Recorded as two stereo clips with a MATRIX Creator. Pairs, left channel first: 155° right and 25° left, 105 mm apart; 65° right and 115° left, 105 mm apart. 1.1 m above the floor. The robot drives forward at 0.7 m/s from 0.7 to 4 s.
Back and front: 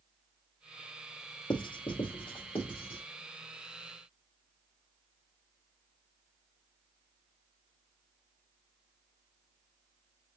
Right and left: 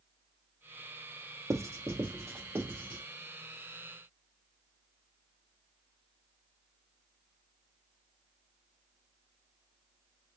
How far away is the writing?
About 0.8 m.